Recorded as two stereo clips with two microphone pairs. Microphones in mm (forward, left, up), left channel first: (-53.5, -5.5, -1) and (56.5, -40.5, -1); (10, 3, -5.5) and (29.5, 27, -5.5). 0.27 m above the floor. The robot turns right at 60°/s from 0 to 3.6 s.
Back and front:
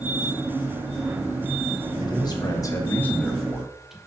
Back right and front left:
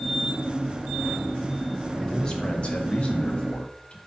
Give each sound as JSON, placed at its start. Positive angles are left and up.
{"t": 2.0, "sound": "a man speaking", "azimuth_deg": 160, "distance_m": 1.1}